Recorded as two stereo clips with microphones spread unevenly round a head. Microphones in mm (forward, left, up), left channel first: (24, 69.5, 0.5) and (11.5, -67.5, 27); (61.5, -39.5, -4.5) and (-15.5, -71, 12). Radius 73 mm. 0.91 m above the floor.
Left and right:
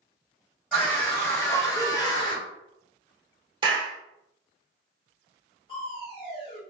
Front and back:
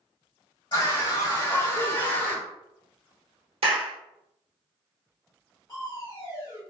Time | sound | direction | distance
0.7 | a scream | 10° left | 1.8 m
3.6 | a clap | 160° right | 0.9 m
5.7 | crushing | 50° left | 1.6 m